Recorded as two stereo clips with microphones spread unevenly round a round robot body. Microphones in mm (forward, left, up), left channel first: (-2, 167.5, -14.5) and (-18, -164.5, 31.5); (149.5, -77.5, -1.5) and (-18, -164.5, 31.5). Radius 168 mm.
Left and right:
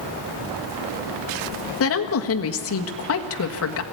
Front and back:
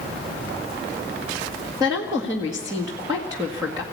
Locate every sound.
1.8 s a woman speaking: 125° left, 1.6 m